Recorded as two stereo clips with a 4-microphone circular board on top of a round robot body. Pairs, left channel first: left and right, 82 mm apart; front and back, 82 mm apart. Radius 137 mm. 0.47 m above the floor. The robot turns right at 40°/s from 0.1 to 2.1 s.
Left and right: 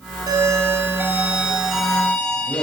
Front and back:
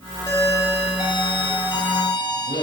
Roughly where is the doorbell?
Ahead right.